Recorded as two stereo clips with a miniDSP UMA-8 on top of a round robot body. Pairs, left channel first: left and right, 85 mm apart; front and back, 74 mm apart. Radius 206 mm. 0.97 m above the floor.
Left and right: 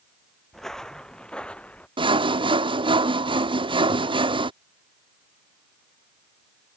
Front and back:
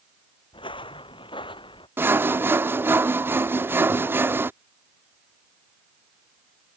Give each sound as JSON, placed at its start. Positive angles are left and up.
{"t": 0.5, "sound": "footsteps", "azimuth_deg": 5}
{"t": 2.0, "sound": "sawing", "azimuth_deg": -115}